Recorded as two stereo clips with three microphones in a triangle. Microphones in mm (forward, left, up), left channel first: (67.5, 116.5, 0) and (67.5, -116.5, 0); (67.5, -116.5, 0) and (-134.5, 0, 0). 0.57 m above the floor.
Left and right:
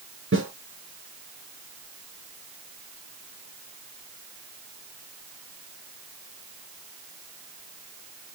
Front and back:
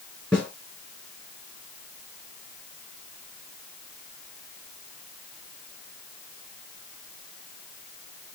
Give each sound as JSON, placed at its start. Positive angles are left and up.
{"t": 0.3, "sound": "a snare drum", "azimuth_deg": -115, "distance_m": 4.0}